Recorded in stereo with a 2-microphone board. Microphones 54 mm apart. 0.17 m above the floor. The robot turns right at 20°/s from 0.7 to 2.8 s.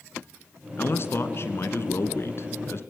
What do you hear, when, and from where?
0.8 s a man speaking: 65° left, 1.9 m; by 2.8 s 105° left, 1.9 m